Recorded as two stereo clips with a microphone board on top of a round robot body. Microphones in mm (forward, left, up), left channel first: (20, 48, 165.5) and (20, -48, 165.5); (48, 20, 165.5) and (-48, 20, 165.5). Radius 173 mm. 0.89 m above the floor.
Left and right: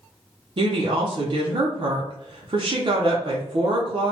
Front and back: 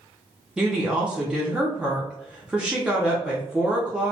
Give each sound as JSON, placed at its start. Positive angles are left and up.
{"t": 0.6, "sound": "a woman speaking", "azimuth_deg": -100, "distance_m": 0.8}